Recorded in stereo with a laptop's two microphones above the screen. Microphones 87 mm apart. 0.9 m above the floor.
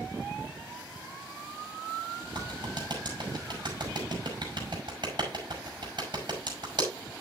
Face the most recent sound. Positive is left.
turn(degrees=-60)  # may be behind; listen again after turning